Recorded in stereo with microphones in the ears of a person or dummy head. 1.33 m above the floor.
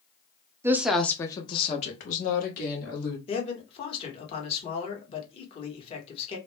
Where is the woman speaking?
15° right (ahead or behind), 0.6 m; by 3.2 s 55° left (ahead or behind), 1.5 m.